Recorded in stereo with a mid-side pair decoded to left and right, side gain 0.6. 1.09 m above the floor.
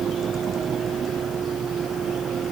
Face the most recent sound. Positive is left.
turn(degrees=-40)